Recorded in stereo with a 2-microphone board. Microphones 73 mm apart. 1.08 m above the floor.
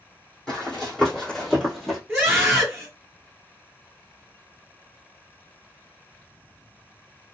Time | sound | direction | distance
0.5 | running footsteps | 10° left (ahead or behind) | 1.9 m
2.1 | a scream | 10° right (ahead or behind) | 1.2 m